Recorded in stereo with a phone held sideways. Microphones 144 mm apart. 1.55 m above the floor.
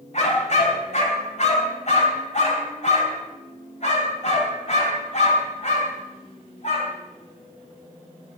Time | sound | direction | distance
0.1 | a dog barking | 55° left (ahead or behind) | 4 m